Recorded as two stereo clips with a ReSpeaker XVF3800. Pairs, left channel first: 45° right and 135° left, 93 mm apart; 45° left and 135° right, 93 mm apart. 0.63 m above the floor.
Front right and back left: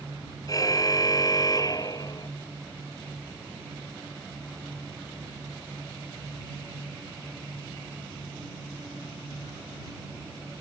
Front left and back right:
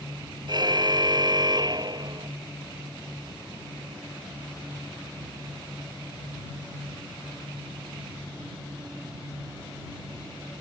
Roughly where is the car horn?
Right.